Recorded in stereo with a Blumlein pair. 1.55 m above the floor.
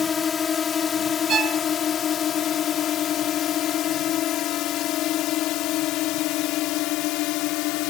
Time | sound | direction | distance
0.0 | a drone | 20° left | ?
1.3 | a violin | 25° right | ?